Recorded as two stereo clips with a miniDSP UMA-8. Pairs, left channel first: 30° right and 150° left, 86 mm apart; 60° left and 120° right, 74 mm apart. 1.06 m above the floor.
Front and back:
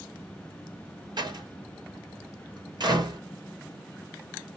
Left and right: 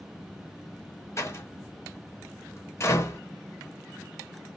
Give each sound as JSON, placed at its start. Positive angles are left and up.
{"t": 1.2, "sound": "a door slam", "azimuth_deg": 115, "distance_m": 1.0}